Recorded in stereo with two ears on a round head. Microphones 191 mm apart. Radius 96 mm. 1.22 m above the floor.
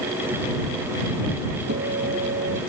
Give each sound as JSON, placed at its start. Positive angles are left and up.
{"t": 1.7, "sound": "a guitar", "side_deg": -45}